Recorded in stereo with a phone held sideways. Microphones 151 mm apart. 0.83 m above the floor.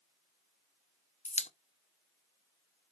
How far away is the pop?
About 0.6 m.